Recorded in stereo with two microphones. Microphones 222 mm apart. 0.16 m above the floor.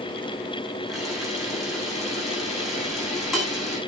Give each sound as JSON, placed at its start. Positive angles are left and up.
{"t": 0.9, "sound": "a camera shutter", "side_deg": 0, "distance_m": 9.5}